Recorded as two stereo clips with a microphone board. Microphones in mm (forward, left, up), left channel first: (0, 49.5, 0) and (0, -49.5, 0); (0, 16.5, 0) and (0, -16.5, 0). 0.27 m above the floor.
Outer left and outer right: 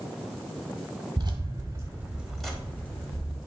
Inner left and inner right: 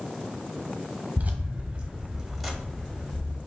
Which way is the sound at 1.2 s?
50° right (ahead or behind).